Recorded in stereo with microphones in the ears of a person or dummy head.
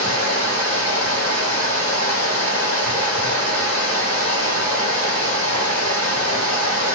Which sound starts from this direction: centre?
Running water, at 0.0 s.